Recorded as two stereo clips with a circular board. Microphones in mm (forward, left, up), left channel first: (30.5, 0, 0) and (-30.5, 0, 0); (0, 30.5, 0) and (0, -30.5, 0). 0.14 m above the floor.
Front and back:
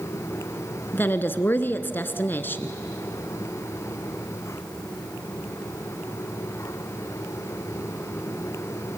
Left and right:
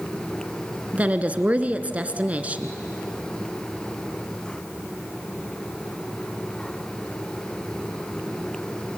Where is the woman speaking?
35° right, 1.4 m.